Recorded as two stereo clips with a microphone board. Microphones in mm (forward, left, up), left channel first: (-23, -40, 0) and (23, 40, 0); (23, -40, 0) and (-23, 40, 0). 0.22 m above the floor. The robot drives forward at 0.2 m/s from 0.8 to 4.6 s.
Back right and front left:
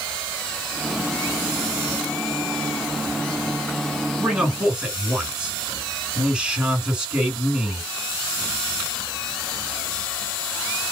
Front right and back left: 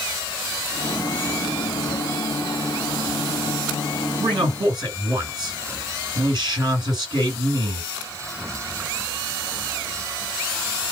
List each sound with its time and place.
4.2 s a man speaking: 140° left, 1.9 m